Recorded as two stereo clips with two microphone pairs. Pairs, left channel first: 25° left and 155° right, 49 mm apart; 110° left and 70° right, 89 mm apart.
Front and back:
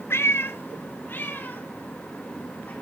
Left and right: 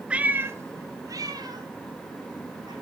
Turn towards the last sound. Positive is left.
turn(degrees=-30)